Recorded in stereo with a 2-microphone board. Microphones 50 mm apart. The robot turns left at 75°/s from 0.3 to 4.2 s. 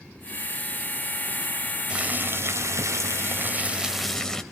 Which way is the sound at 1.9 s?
20° right.